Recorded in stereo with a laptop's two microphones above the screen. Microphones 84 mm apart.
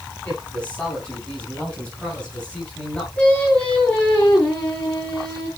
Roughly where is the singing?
Centre.